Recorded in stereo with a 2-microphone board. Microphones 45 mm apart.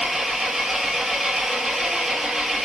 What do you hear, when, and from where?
0.0 s an engine running: 5° right (ahead or behind), 1.7 m